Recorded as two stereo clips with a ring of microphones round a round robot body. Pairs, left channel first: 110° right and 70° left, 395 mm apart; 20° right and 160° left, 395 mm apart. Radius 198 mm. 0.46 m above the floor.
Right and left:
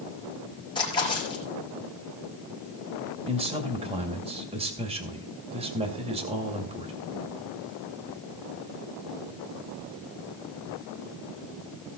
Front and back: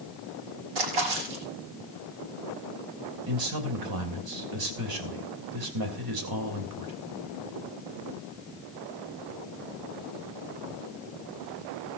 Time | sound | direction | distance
0.8 | a splash | 170° left | 4.5 m
3.3 | a man speaking | 140° left | 2.5 m